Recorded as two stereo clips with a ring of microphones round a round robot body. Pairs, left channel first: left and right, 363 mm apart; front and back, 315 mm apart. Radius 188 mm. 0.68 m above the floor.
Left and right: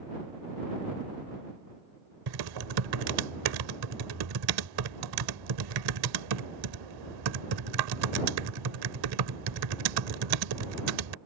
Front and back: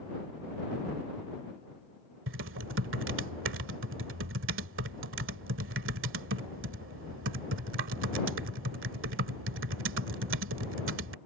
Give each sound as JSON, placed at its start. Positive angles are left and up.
{"t": 2.3, "sound": "typing on a keyboard", "azimuth_deg": -120}